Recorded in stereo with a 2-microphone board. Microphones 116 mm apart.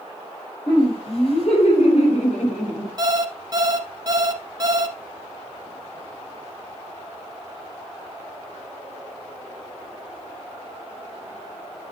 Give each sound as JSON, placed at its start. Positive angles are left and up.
{"t": 0.7, "sound": "laughter", "side_deg": 50, "distance_m": 5.5}
{"t": 3.0, "sound": "an alarm clock", "side_deg": -35, "distance_m": 1.1}